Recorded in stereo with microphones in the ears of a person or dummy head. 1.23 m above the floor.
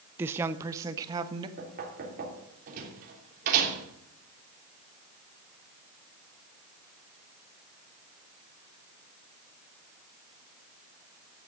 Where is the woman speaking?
15° right (ahead or behind), 0.6 m; by 1.5 s 20° right (ahead or behind), 1.3 m.